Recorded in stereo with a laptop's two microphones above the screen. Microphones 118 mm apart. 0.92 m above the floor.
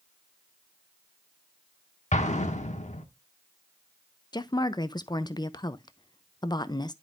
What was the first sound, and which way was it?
An explosion, 80° left.